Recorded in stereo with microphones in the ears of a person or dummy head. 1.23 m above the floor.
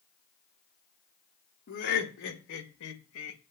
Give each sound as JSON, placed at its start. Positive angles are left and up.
{"t": 1.7, "sound": "laughter", "side_deg": 50, "distance_m": 1.7}